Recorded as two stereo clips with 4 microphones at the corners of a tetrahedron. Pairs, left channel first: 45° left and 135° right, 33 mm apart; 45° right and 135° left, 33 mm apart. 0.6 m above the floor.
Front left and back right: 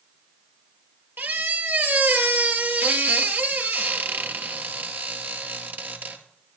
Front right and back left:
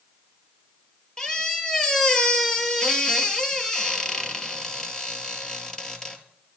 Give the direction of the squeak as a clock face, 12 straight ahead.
4 o'clock.